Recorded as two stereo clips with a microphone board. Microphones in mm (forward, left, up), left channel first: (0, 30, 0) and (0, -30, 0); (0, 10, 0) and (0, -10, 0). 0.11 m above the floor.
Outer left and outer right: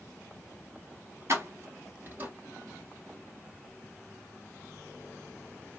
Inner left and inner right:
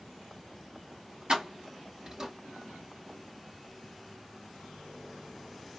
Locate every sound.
1.3 s keys jangling: 50° right (ahead or behind), 1.3 m; by 2.3 s 30° right (ahead or behind), 1.1 m